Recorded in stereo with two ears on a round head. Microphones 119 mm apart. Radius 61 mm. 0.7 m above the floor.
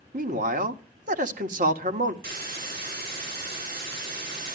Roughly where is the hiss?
Right.